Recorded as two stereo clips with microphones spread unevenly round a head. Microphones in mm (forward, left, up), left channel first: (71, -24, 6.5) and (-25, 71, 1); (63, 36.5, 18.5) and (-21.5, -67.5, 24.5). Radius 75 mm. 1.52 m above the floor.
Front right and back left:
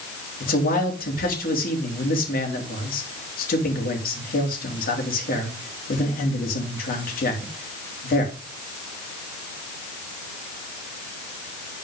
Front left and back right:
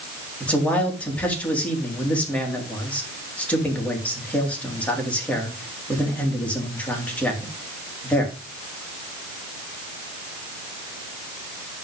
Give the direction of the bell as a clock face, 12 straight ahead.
I don't hear a bell.